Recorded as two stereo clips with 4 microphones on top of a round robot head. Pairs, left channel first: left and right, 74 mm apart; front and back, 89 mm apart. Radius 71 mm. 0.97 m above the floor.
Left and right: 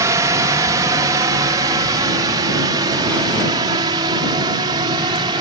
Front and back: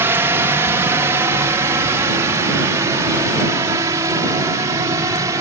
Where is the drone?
120° right.